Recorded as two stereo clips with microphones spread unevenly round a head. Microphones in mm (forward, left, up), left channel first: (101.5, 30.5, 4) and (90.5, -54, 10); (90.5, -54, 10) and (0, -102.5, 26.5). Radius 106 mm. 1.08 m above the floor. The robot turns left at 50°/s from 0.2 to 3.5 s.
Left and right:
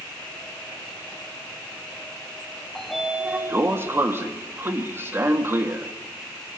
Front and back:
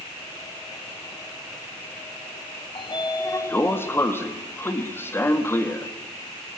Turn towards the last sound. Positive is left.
turn(degrees=-35)